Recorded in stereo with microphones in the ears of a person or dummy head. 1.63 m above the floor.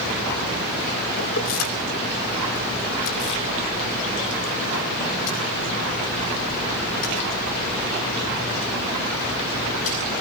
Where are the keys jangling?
75° left (ahead or behind), 3 m; by 10.2 s 45° left (ahead or behind), 13 m.